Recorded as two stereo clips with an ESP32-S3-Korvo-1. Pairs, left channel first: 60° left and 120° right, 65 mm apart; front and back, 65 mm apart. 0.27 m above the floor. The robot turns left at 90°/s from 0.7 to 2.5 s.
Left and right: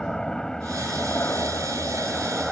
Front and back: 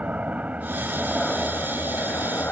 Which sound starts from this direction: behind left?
A helicopter, at 0.0 s.